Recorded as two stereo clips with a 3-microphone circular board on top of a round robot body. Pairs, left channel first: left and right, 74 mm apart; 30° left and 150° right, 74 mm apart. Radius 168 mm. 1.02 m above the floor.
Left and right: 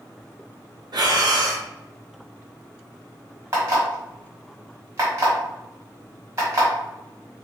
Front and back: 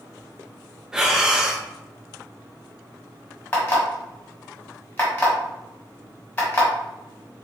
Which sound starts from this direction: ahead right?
An alarm clock, at 3.5 s.